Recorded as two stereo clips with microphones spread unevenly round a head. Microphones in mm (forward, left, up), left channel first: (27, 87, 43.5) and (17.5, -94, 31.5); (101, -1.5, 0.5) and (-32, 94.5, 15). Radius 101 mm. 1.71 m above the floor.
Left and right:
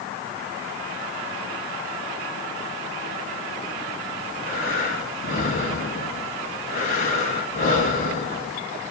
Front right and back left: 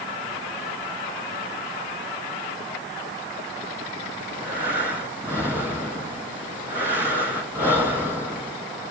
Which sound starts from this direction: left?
Breathing, at 4.2 s.